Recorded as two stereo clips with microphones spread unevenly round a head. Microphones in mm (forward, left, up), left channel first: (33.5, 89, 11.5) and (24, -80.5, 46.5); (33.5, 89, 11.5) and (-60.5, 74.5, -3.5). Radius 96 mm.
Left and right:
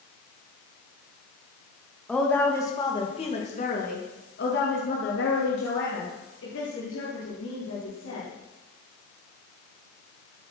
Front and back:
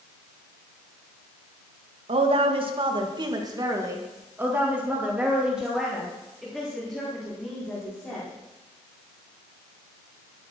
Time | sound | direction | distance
2.1 | a woman speaking | 175° left | 1.9 m